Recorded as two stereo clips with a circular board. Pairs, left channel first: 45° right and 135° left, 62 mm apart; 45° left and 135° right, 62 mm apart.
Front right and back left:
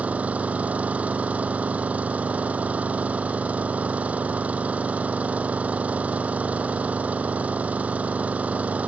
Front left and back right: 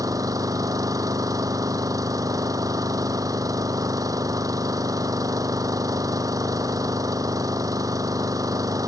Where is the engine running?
160° right.